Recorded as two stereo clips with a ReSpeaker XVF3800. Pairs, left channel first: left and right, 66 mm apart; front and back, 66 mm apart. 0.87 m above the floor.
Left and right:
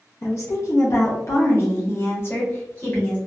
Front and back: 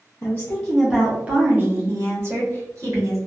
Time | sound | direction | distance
0.2 | a woman speaking | 50° left | 0.6 m